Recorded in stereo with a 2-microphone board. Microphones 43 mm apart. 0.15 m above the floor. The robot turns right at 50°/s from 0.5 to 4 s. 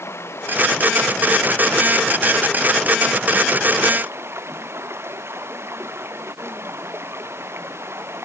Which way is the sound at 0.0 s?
75° left.